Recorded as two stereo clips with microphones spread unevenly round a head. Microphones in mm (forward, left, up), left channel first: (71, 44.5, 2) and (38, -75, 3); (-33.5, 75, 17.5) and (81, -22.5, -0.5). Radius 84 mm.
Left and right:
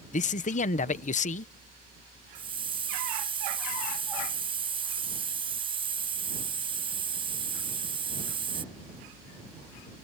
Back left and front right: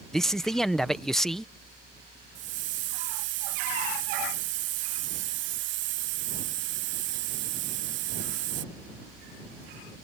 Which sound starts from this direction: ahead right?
A hiss, at 2.4 s.